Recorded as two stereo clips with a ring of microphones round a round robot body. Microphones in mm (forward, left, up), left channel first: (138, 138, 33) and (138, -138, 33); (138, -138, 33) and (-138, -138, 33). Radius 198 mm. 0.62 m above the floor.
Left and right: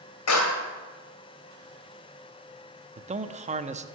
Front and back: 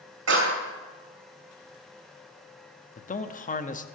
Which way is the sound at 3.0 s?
40° right.